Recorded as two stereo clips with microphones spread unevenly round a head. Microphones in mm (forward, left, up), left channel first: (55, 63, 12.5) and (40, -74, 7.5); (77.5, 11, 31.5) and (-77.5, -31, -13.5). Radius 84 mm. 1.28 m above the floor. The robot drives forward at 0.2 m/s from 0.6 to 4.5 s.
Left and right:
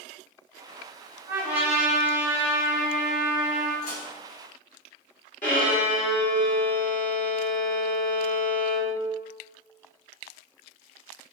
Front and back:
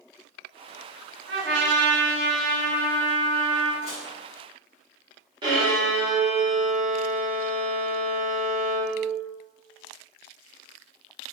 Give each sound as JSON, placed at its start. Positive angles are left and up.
{"t": 1.3, "sound": "a trumpet", "azimuth_deg": -170, "distance_m": 1.4}
{"t": 3.8, "sound": "dishes clattering", "azimuth_deg": 70, "distance_m": 2.0}
{"t": 5.4, "sound": "a violin", "azimuth_deg": 130, "distance_m": 1.6}